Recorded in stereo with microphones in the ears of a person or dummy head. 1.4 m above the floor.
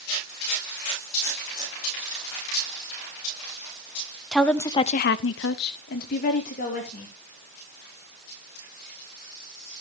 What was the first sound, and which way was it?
A woman speaking, centre (ahead or behind).